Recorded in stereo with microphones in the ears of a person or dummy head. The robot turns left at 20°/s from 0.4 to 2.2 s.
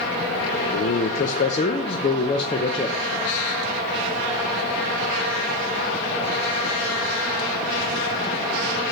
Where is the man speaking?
50° left (ahead or behind), 0.6 m; by 3.0 s 25° left (ahead or behind), 0.6 m.